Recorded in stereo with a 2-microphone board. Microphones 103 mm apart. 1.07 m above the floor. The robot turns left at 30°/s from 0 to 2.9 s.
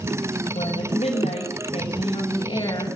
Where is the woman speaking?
110° left, 6 m; by 3.0 s 40° left, 6 m.